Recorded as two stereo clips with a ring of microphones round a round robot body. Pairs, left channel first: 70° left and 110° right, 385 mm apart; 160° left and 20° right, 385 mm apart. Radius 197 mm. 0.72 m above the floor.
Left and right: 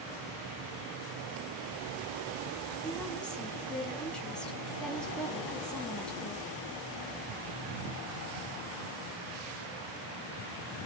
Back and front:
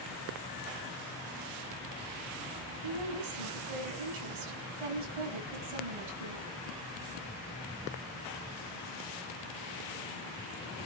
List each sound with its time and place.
2.8 s a woman speaking: 20° right, 5.5 m